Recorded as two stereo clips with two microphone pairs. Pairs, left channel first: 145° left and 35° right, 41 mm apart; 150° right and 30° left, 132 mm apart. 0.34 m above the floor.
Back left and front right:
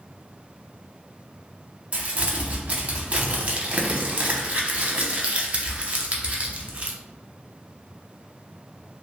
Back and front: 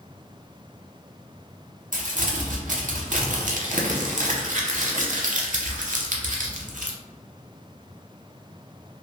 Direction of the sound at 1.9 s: 25° left.